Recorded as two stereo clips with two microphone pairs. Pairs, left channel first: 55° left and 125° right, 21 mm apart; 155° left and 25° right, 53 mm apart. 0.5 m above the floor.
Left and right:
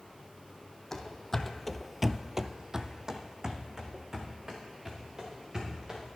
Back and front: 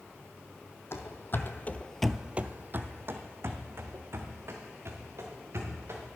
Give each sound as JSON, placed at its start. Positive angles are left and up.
{"t": 0.9, "sound": "running footsteps", "azimuth_deg": 125, "distance_m": 1.1}